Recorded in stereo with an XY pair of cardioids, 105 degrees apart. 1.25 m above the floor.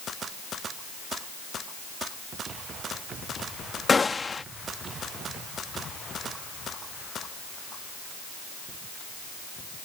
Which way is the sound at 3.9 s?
30° left.